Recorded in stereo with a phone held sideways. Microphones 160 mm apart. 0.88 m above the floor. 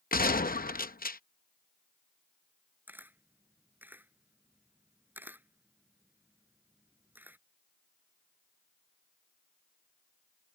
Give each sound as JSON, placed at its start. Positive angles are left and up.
{"t": 0.1, "sound": "a gunshot", "side_deg": 65}
{"t": 2.9, "sound": "a camera shutter", "side_deg": -10}